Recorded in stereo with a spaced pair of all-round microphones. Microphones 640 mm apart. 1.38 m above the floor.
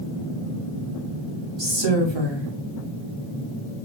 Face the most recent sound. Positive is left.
turn(degrees=-45)  # may be behind; listen again after turning